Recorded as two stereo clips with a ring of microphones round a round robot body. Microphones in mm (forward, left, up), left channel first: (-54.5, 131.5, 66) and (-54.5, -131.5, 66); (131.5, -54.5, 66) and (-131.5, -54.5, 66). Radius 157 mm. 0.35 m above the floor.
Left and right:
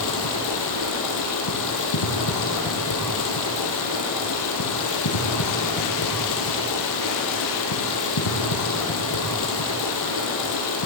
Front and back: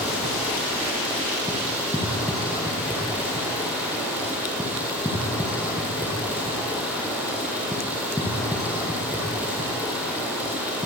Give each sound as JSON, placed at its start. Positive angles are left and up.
{"t": 0.0, "sound": "running water", "azimuth_deg": 95, "distance_m": 4.5}